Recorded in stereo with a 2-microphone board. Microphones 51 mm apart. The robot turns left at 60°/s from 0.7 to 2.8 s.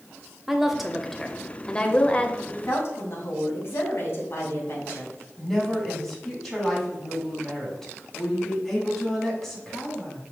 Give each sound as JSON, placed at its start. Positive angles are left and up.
{"t": 0.5, "sound": "a woman speaking", "side_deg": -5, "distance_m": 0.9}
{"t": 2.5, "sound": "a woman speaking", "side_deg": 35, "distance_m": 2.5}
{"t": 5.4, "sound": "a woman speaking", "side_deg": 5, "distance_m": 3.0}